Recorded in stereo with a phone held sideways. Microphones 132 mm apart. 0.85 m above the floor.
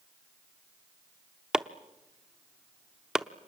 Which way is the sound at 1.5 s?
5° right (ahead or behind).